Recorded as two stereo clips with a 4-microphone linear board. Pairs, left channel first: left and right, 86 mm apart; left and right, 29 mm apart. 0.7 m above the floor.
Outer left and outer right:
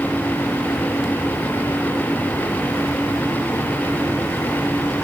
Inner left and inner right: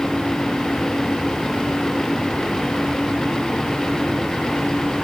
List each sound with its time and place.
Only background noise.